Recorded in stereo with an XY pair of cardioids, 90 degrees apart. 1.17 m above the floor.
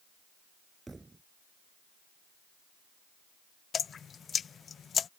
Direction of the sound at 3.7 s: 55° left.